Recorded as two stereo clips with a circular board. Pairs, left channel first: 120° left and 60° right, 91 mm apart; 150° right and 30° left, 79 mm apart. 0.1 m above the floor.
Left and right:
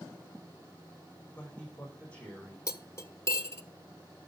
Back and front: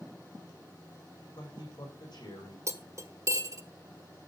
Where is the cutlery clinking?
65° left, 1.3 m.